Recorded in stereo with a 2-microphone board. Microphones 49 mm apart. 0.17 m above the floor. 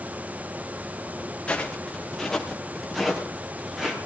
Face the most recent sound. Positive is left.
turn(degrees=-10)  # may be behind; listen again after turning